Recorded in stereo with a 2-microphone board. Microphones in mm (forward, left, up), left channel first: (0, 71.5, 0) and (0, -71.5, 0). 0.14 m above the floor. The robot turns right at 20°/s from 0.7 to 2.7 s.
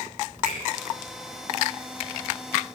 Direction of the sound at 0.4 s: 70° right (ahead or behind).